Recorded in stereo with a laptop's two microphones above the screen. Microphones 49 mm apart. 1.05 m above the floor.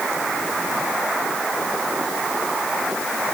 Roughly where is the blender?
No blender in this recording.